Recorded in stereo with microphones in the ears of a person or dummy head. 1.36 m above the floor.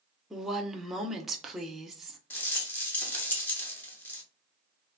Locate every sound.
0.3 s a woman speaking: centre (ahead or behind), 0.6 m
2.3 s a rattle: 15° left (ahead or behind), 0.7 m